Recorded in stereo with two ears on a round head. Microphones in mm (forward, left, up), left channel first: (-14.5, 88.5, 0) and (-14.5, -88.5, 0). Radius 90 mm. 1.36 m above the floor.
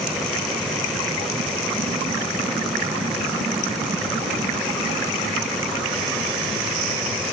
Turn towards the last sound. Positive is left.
No sound to turn to.